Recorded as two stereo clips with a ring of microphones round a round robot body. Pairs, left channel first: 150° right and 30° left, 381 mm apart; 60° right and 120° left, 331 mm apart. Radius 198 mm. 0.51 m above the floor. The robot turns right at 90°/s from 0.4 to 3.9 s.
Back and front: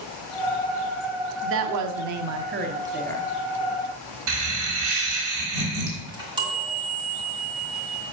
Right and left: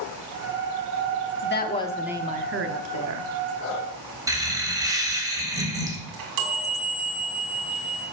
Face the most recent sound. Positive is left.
turn(degrees=110)